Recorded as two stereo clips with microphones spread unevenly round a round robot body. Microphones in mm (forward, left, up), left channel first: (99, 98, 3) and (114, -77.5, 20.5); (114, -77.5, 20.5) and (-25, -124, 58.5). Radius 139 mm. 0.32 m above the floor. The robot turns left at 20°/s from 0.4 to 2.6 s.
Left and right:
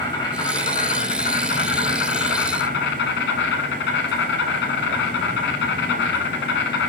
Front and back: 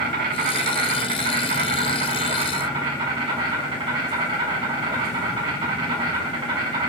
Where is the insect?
170° left, 1.2 m; by 6.9 s 125° left, 1.2 m.